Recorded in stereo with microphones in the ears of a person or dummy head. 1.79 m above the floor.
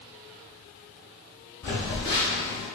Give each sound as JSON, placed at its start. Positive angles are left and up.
{"t": 1.6, "sound": "a phone buzzing", "side_deg": 20, "distance_m": 1.5}